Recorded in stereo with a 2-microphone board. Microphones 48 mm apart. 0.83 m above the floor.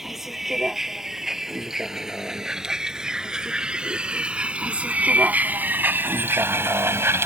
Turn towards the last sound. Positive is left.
turn(degrees=-75)  # may be behind; listen again after turning